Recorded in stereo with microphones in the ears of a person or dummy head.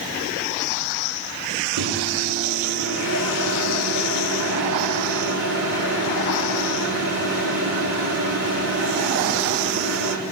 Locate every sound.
1.8 s a microwave: 60° right (ahead or behind), 2.5 m